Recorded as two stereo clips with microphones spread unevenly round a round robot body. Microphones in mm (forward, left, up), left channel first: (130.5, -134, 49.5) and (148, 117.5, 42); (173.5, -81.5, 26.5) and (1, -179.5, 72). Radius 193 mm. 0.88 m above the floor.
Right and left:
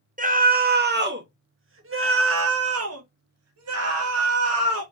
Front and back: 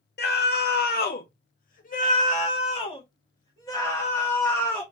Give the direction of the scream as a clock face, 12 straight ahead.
11 o'clock.